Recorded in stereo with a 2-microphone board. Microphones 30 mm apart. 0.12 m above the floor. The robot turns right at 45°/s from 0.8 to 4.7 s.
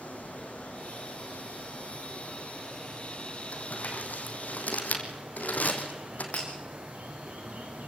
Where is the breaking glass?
50° left (ahead or behind), 9 m.